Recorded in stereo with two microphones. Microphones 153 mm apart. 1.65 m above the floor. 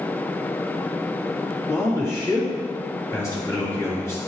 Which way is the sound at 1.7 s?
20° left (ahead or behind).